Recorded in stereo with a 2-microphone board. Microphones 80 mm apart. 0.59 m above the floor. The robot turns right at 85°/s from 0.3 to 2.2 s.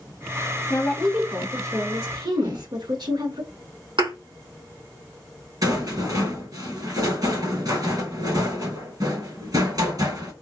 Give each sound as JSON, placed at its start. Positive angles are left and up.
{"t": 0.7, "sound": "a woman speaking", "azimuth_deg": 145, "distance_m": 1.4}
{"t": 2.4, "sound": "a whoosh", "side_deg": -75, "distance_m": 3.0}
{"t": 4.0, "sound": "a thud", "side_deg": -85, "distance_m": 3.0}
{"t": 5.6, "sound": "a rattle", "side_deg": -60, "distance_m": 2.5}